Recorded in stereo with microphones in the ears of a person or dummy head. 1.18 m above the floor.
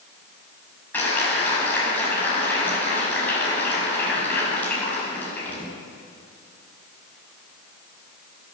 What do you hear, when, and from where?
0.9 s a clap: 10° left (ahead or behind), 6 m